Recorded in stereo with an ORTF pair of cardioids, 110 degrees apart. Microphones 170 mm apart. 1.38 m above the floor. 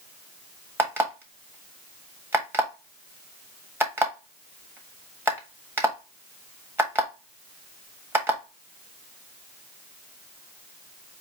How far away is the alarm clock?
About 1.3 m.